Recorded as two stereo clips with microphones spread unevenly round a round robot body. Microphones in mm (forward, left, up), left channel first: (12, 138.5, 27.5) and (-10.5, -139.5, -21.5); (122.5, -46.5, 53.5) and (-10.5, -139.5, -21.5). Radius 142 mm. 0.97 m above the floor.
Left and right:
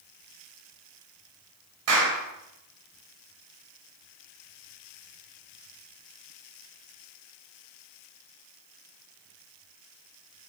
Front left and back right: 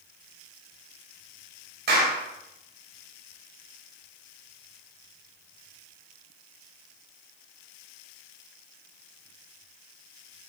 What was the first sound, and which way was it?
A clap, 130° right.